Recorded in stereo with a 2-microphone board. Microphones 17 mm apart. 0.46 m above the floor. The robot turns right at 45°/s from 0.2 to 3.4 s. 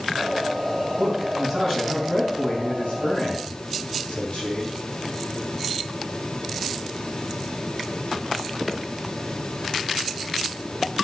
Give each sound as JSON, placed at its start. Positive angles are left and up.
{"t": 1.0, "sound": "a man speaking", "azimuth_deg": -20, "distance_m": 4.5}